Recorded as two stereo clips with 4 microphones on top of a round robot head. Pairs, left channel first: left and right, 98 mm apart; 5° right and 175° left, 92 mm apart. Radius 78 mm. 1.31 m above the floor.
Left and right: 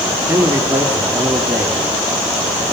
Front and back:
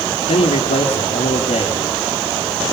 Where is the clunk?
I don't hear a clunk.